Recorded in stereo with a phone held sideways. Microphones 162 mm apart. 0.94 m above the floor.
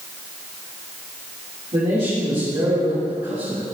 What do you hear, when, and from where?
1.7 s a man speaking: 40° right (ahead or behind), 2.5 m